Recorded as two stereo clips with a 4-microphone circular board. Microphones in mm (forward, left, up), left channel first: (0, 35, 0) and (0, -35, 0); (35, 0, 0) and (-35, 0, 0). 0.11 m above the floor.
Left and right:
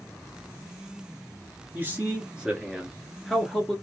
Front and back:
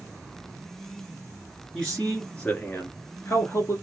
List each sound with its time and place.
1.7 s a man speaking: 75° right, 1.2 m; by 3.8 s 15° left, 1.4 m